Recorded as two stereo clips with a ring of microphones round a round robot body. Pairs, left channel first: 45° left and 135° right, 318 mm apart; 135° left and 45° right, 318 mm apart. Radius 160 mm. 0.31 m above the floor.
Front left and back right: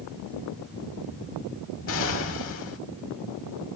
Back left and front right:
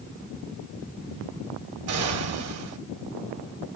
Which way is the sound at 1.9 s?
5° right.